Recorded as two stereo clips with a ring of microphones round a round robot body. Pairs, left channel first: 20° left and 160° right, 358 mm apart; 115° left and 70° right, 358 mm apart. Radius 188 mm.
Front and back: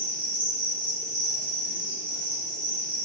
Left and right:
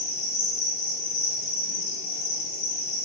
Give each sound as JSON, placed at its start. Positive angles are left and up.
{"t": 0.0, "sound": "an insect", "azimuth_deg": 110, "distance_m": 0.8}